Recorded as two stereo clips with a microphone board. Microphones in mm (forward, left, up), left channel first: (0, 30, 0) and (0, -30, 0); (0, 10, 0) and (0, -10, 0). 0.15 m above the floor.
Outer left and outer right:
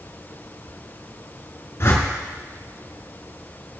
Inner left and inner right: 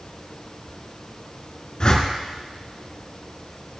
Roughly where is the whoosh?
Left.